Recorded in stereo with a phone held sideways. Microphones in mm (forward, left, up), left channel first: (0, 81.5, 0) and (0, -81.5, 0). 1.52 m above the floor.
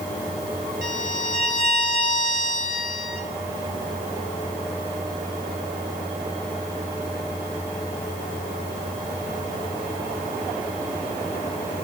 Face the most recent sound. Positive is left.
turn(degrees=50)  # may be behind; listen again after turning